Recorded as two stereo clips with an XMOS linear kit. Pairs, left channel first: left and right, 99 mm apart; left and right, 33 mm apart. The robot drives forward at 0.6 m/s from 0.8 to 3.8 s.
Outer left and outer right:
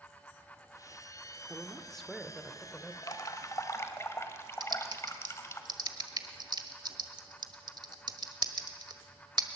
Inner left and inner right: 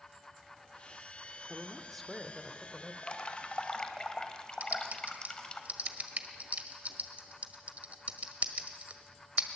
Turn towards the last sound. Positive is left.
turn(degrees=-45)  # may be behind; listen again after turning